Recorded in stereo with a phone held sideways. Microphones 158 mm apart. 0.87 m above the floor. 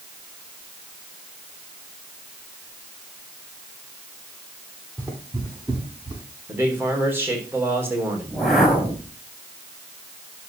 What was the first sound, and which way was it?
Footsteps, 20° right (ahead or behind).